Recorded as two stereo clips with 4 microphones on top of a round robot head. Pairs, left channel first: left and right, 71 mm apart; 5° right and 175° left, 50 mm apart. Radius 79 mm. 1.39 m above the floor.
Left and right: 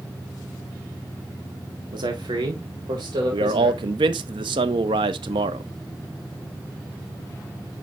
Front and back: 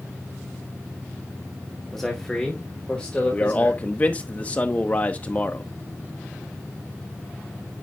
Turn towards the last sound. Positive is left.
turn(degrees=-75)